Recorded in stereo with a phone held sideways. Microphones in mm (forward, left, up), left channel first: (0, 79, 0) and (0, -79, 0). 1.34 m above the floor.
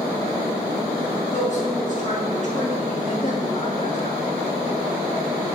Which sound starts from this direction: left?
A woman speaking, at 1.3 s.